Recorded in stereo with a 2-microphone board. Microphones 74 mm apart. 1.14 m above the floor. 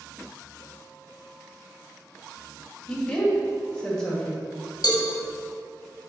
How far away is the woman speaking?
About 2 m.